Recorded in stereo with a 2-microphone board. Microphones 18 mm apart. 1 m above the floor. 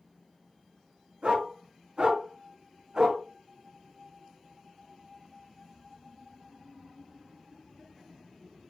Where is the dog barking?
70° right (ahead or behind), 5.5 m; by 3.2 s 45° right (ahead or behind), 4 m.